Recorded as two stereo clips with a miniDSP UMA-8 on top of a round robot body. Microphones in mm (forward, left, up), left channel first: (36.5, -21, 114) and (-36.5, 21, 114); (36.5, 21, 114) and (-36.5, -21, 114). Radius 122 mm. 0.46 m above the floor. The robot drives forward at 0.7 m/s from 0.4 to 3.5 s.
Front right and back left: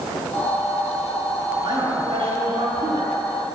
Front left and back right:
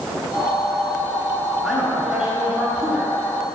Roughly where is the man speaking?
Behind left.